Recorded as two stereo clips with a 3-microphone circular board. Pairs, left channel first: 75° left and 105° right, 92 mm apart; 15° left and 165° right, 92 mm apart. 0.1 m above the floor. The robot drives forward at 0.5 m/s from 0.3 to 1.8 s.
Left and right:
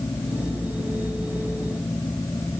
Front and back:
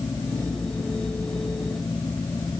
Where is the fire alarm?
I don't hear a fire alarm.